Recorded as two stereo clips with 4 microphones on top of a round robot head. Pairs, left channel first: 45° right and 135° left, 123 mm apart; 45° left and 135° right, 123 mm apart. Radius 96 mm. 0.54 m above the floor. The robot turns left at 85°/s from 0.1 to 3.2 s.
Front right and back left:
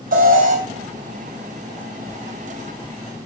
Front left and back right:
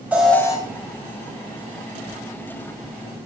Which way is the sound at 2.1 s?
160° right.